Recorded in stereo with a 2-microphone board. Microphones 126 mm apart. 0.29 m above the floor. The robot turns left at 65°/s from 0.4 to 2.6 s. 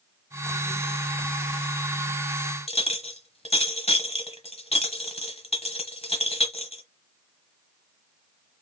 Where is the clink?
55° left (ahead or behind), 1.2 m.